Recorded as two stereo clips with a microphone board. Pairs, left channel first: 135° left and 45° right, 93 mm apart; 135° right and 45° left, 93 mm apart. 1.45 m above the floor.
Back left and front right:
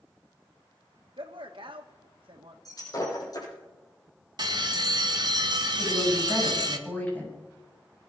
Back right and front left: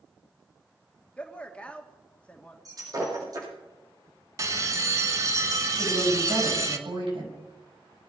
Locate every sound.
1.2 s a man speaking: 60° right, 2 m
2.6 s breaking glass: 90° left, 8.5 m
4.4 s a bell: 5° right, 1.4 m
5.8 s a woman speaking: 65° left, 8 m